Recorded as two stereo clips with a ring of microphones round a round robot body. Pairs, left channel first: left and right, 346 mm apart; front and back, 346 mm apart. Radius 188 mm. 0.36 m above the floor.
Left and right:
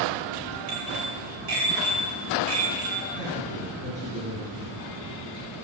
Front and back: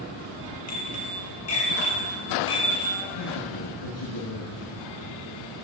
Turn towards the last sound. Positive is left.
turn(degrees=-15)